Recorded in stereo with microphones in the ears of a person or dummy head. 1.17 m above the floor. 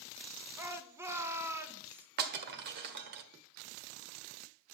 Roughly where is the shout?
Centre.